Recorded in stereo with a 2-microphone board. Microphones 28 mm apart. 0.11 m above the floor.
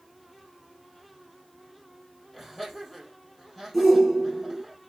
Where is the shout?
5° left (ahead or behind), 1.9 m.